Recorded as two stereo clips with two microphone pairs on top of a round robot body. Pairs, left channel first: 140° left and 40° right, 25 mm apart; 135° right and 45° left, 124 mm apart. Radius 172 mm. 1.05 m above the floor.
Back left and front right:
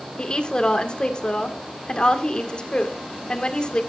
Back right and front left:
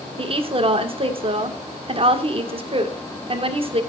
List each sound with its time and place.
0.2 s a woman speaking: 85° left, 1.8 m